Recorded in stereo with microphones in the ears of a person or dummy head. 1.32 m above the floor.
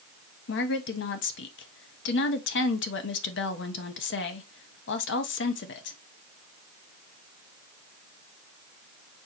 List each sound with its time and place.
0.5 s a woman speaking: 55° left (ahead or behind), 0.7 m